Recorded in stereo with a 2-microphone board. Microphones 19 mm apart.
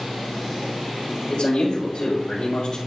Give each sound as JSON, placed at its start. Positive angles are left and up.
{"t": 1.3, "sound": "a man speaking", "side_deg": 55, "distance_m": 3.0}